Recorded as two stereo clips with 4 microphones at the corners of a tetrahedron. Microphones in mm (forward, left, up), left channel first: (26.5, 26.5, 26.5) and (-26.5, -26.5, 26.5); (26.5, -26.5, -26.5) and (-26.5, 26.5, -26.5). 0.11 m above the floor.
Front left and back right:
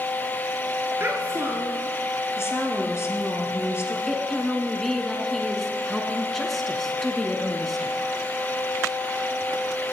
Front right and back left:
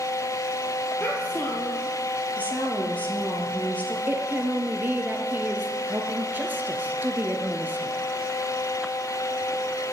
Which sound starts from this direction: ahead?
A woman speaking, at 2.4 s.